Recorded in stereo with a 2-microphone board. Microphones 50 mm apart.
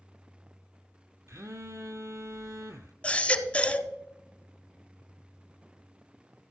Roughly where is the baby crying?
Left.